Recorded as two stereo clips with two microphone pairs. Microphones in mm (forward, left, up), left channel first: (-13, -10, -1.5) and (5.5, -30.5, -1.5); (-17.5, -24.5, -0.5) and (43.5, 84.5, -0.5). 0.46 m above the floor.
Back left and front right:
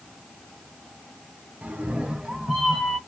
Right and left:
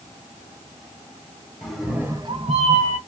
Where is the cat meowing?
35° right, 0.9 m; by 3.0 s 60° left, 0.9 m.